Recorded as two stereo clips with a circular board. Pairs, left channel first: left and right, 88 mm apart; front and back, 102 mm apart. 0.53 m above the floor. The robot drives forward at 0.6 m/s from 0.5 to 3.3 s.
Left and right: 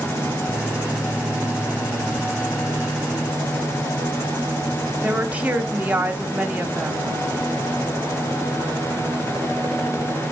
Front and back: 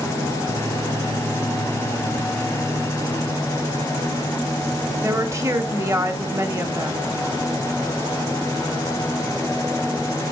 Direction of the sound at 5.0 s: 150° right.